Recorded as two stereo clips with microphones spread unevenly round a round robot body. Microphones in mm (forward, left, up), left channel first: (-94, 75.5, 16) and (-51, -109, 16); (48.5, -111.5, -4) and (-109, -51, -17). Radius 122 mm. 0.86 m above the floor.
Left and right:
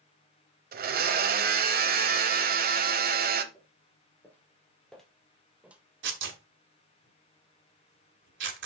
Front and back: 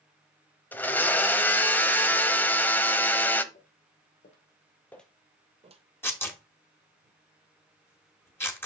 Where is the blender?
95° right, 0.9 m.